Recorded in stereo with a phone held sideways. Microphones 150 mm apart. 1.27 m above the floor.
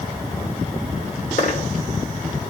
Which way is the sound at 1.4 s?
55° left (ahead or behind).